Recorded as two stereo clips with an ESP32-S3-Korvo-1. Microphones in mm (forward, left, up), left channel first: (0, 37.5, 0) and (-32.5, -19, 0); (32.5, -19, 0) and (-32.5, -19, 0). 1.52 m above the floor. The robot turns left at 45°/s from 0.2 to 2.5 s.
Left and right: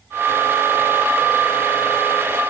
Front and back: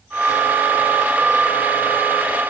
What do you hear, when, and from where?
Only background noise.